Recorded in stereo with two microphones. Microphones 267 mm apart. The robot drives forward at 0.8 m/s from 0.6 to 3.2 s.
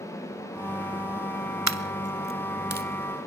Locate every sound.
1.7 s a dropped coin: 85° right, 0.7 m; by 2.9 s 35° right (ahead or behind), 1.3 m